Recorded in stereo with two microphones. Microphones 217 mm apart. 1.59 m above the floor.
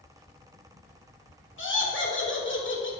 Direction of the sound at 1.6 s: 65° left (ahead or behind).